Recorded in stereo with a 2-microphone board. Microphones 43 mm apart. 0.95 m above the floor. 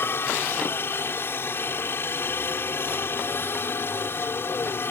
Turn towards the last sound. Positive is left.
turn(degrees=60)  # may be behind; listen again after turning